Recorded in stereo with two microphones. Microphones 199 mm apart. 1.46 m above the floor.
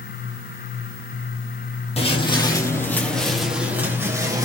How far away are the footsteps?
About 2 m.